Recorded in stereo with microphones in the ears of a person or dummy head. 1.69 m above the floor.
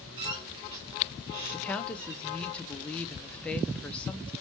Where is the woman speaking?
5° left (ahead or behind), 0.5 m.